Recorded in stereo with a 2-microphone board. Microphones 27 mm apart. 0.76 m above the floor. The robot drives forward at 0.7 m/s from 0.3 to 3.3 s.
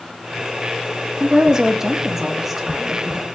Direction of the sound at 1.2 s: 30° right (ahead or behind).